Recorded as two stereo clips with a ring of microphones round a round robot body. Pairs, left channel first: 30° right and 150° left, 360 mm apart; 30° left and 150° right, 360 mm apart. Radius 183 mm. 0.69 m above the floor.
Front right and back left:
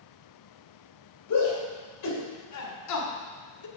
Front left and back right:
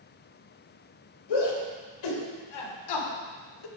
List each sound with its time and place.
1.3 s a shout: 15° left, 3.5 m; by 3.7 s 10° left, 1.5 m